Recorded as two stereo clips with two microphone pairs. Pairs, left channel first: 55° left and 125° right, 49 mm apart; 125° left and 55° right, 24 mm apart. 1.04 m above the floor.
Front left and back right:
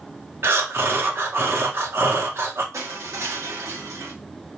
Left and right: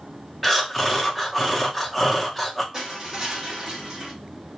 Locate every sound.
0.4 s breathing: 145° right, 0.7 m
2.7 s crushing: 115° right, 0.9 m